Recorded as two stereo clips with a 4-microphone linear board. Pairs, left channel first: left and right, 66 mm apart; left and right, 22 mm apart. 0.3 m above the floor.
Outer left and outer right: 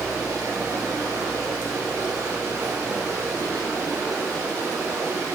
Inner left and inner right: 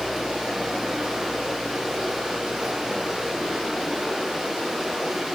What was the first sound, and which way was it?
Running water, 40° right (ahead or behind).